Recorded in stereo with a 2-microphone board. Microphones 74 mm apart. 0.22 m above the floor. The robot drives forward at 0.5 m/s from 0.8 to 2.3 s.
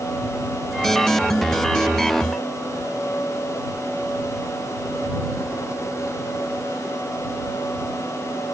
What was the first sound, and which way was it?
Only background noise.